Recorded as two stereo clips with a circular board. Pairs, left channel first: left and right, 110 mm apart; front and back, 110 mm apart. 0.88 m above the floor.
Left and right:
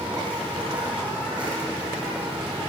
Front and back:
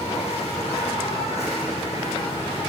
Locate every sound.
0.0 s an insect: 10° right, 9.5 m